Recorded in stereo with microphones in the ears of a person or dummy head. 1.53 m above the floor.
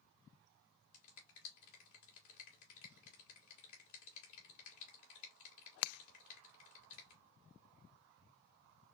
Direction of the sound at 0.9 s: 75° left (ahead or behind).